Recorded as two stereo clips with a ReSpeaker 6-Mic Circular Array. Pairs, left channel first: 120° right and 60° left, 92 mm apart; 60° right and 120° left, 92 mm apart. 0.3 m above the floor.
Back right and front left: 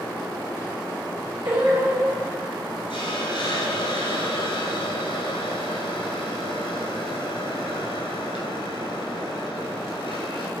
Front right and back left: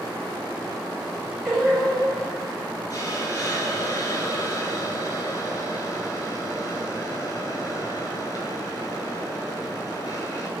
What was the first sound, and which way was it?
Singing, 30° left.